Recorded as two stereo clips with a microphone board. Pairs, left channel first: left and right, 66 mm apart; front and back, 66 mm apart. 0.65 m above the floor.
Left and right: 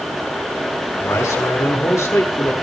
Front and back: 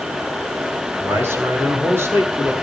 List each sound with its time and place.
1.0 s a man speaking: 130° left, 7 m